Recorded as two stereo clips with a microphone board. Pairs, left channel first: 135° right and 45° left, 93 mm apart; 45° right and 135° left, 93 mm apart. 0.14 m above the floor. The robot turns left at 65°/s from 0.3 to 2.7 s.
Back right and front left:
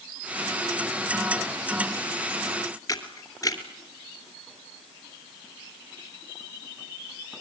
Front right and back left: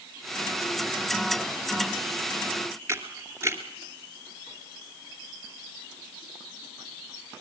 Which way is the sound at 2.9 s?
175° right.